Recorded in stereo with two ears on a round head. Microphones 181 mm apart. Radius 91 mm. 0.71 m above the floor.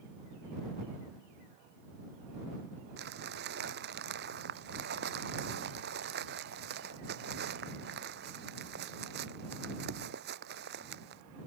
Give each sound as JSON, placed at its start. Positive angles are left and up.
{"t": 3.0, "sound": "crumpling", "side_deg": -55}